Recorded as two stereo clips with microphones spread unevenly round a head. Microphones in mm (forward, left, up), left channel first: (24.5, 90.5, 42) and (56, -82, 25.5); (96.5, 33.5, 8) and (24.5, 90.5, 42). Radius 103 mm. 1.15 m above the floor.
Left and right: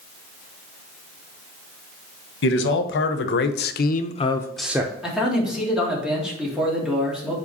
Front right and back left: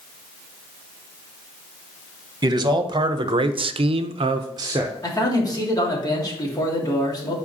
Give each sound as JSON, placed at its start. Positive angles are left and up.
{"t": 2.4, "sound": "a man speaking", "azimuth_deg": 90, "distance_m": 1.3}
{"t": 5.0, "sound": "a man speaking", "azimuth_deg": 10, "distance_m": 2.5}